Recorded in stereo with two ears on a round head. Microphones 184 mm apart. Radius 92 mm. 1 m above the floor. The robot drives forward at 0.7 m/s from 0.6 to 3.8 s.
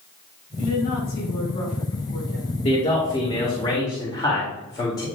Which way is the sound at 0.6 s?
80° left.